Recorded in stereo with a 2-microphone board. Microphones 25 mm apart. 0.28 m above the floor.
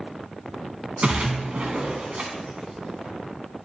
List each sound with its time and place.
1.0 s a splash: 60° right (ahead or behind), 1.2 m